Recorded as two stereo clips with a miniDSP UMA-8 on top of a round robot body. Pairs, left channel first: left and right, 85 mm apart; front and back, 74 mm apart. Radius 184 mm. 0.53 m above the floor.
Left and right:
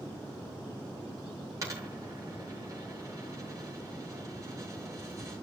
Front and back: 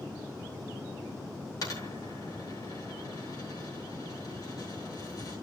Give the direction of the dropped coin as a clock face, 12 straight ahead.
1 o'clock.